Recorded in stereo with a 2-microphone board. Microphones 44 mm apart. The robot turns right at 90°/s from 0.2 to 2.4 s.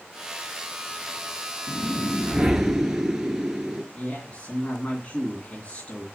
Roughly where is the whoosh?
Behind left.